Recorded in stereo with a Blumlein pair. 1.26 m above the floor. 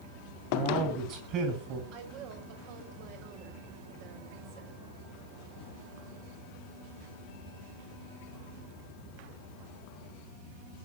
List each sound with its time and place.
0.5 s a man speaking: 35° right, 10 m
1.9 s a woman speaking: 40° right, 6 m